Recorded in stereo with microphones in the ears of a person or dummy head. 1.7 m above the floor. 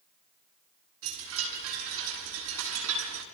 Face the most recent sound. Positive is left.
turn(degrees=-80)